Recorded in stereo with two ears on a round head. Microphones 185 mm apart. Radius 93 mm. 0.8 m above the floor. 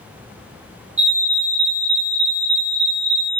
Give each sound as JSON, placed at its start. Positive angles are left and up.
{"t": 1.0, "sound": "a fire alarm", "side_deg": -35, "distance_m": 1.7}